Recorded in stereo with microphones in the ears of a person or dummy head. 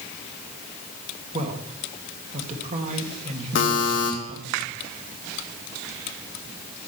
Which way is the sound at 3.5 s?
60° left (ahead or behind).